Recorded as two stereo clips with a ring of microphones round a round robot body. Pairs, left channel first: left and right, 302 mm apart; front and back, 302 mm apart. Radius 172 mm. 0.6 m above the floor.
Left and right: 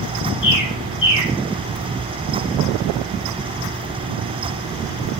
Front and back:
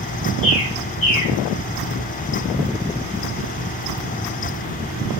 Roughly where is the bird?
Ahead left.